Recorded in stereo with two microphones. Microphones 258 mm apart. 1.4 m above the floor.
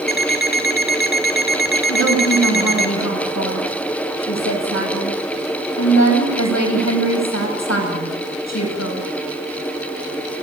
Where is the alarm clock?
35° left (ahead or behind), 2 m.